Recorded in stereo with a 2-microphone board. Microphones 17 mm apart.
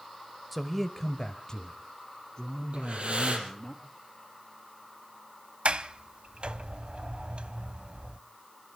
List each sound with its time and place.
0.5 s a man speaking: 5° right (ahead or behind), 0.9 m; by 3.7 s 30° left (ahead or behind), 4 m
2.7 s breathing: 70° right (ahead or behind), 3.5 m
5.7 s a sliding door: 65° right (ahead or behind), 0.7 m